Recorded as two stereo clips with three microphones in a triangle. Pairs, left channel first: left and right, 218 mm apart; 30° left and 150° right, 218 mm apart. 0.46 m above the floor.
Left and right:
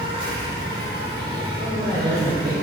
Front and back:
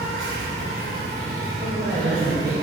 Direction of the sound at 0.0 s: 155° right.